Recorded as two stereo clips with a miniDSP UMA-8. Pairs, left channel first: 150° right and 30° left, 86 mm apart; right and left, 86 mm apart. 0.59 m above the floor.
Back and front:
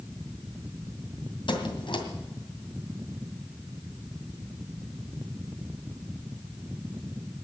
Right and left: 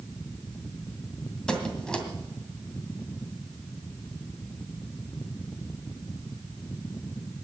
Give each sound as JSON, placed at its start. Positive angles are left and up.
{"t": 1.5, "sound": "a squeak", "azimuth_deg": -170, "distance_m": 2.0}